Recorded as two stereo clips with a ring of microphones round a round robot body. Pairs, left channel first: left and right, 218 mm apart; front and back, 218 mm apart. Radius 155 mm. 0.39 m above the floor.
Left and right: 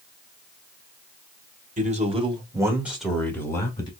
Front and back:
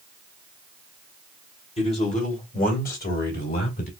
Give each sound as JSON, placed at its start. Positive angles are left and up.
{"t": 1.8, "sound": "a man speaking", "azimuth_deg": -55, "distance_m": 1.8}